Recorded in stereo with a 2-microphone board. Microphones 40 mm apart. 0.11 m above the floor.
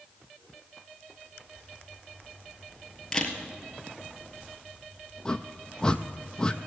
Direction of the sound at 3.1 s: 15° left (ahead or behind).